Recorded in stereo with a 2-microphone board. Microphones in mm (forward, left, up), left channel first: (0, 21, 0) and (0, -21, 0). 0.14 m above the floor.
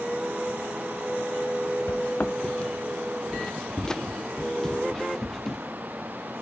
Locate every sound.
1.9 s footsteps: 50° left (ahead or behind); by 5.6 s 10° left (ahead or behind)